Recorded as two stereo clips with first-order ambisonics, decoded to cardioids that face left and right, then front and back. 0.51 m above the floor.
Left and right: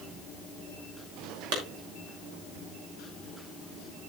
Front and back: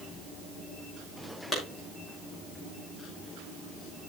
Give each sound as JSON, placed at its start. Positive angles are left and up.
{"t": 1.5, "sound": "a clap", "azimuth_deg": -90, "distance_m": 5.5}